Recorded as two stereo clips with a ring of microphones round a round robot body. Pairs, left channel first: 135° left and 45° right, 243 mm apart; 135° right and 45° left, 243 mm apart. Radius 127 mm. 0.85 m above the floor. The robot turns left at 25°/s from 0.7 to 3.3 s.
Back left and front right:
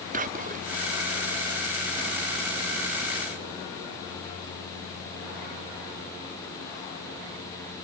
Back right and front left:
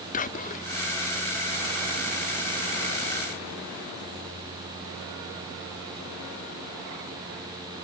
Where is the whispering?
90° right, 0.6 m.